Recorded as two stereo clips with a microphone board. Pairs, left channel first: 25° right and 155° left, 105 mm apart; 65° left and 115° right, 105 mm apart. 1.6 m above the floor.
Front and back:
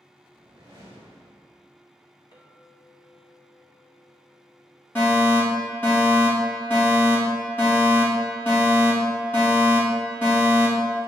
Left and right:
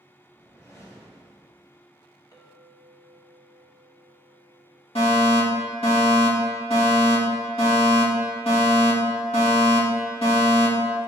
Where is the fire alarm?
45° left, 3 m.